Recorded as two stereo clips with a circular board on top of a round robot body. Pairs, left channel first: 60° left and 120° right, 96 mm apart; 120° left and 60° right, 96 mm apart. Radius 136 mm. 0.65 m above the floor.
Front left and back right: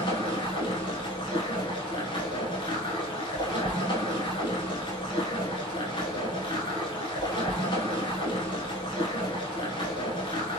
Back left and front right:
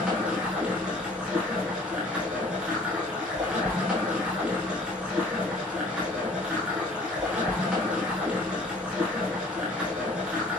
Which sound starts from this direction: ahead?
Running water, at 0.0 s.